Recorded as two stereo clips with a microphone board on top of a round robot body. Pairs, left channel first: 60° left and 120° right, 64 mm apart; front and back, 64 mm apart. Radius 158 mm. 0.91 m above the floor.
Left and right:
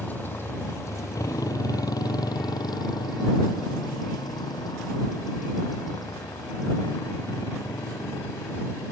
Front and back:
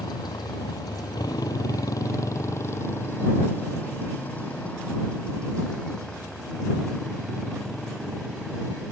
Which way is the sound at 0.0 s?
Straight ahead.